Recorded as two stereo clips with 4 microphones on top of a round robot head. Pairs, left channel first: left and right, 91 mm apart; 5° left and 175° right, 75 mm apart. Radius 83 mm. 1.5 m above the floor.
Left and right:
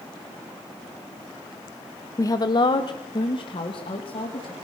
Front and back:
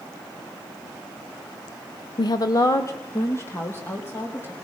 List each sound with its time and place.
2.2 s a woman speaking: 30° left, 0.7 m; by 4.5 s 65° left, 3.5 m